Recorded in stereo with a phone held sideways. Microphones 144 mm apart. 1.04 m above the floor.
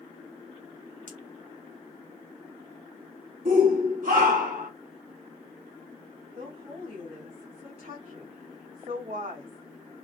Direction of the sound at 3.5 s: 70° right (ahead or behind).